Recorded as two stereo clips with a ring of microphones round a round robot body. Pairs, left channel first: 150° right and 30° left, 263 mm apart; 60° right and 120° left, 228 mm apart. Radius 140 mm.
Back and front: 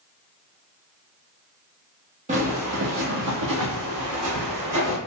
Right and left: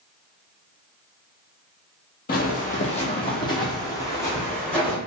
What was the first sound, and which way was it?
Footsteps, 25° right.